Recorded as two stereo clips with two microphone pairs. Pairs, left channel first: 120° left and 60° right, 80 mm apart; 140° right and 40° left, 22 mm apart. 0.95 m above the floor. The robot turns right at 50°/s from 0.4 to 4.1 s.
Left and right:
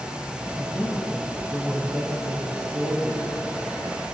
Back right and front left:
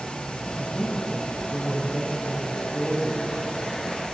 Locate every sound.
0.6 s a woman speaking: 175° left, 4.5 m; by 3.7 s 25° right, 4.5 m